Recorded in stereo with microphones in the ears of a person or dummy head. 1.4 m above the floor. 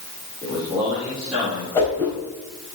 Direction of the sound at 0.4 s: 5° right (ahead or behind).